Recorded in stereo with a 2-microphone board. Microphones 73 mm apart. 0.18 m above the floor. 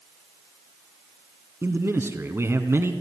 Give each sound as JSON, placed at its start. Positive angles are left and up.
{"t": 1.6, "sound": "a man speaking", "side_deg": -35, "distance_m": 1.8}